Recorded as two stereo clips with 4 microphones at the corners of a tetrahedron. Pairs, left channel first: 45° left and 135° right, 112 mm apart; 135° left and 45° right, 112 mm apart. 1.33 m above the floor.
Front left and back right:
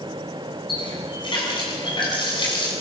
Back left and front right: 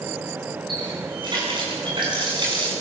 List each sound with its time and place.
0.7 s a running tap: straight ahead, 8 m